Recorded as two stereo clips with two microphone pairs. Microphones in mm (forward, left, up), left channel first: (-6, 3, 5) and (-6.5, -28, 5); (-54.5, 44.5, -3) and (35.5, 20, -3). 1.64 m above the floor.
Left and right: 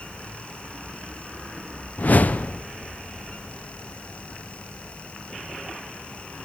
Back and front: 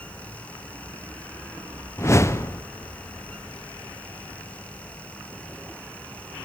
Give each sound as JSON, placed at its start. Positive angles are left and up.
{"t": 2.0, "sound": "a whoosh", "azimuth_deg": 110, "distance_m": 0.6}